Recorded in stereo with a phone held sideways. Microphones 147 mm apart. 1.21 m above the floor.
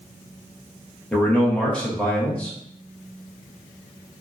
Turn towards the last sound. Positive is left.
turn(degrees=5)  # may be behind; listen again after turning